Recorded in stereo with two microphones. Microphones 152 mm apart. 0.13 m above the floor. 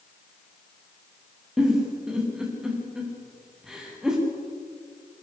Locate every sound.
1.6 s a giggle: 5° right (ahead or behind), 8 m